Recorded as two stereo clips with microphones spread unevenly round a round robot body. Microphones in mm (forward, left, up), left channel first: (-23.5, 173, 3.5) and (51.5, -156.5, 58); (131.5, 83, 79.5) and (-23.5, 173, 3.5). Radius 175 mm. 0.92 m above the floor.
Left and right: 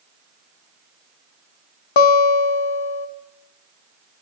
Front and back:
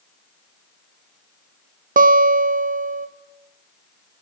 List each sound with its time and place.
2.0 s a guitar: 95° left, 0.8 m